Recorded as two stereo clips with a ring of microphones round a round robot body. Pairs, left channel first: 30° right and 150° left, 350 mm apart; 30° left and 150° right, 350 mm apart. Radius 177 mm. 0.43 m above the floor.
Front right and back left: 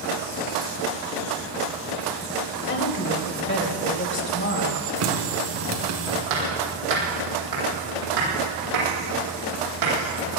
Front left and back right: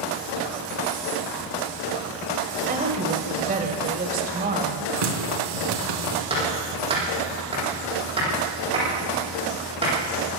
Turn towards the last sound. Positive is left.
turn(degrees=135)